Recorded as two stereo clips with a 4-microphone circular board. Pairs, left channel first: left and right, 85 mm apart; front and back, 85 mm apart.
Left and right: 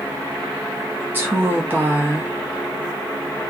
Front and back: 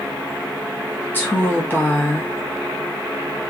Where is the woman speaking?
45° right, 0.7 m.